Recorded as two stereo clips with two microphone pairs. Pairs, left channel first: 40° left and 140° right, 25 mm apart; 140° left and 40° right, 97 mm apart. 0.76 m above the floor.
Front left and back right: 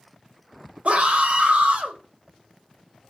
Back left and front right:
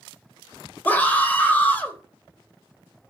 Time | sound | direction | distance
0.8 | a scream | 150° right | 3 m